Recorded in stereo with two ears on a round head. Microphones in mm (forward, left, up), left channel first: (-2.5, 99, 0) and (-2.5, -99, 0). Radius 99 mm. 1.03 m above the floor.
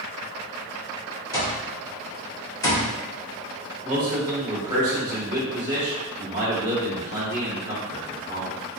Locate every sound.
1.3 s an alarm clock: 15° left (ahead or behind), 1.4 m
3.8 s a man speaking: 20° right (ahead or behind), 1.7 m